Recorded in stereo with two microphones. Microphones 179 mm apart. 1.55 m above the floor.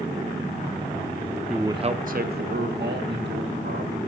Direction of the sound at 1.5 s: Centre (ahead or behind).